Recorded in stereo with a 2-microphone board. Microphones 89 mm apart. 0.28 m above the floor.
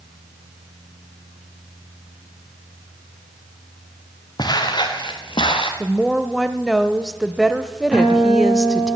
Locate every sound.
4.4 s footsteps: 50° left (ahead or behind), 2.5 m; by 5.7 s 75° left (ahead or behind), 2.5 m
5.8 s a woman speaking: centre (ahead or behind), 0.9 m
7.9 s a guitar: 10° right (ahead or behind), 9 m